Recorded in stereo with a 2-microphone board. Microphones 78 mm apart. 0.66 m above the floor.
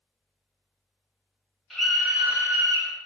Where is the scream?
Centre (ahead or behind), 0.9 m; by 2.9 s 35° right (ahead or behind), 0.7 m.